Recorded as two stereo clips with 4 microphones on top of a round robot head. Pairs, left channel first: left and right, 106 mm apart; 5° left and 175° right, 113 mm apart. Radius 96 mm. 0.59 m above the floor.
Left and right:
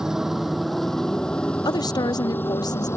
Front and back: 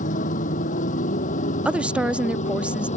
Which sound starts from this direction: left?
A woman speaking, at 1.6 s.